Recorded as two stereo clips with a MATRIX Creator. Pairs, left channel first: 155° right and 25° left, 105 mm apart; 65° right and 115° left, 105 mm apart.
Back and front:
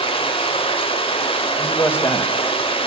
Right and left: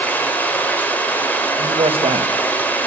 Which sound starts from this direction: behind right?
Running water, at 0.0 s.